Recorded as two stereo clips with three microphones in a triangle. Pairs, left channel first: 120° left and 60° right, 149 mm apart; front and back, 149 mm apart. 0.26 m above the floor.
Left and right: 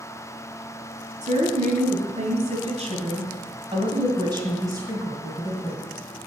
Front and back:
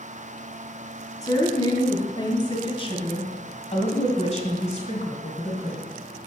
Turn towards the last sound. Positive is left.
turn(degrees=15)